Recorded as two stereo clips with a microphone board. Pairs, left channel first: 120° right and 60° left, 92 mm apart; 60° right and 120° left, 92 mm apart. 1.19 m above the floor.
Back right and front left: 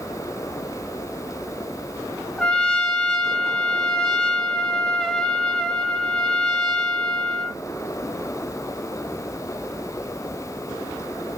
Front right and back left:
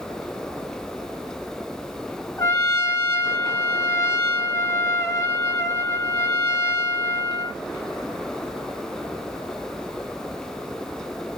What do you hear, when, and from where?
2.4 s a trumpet: 40° right, 0.7 m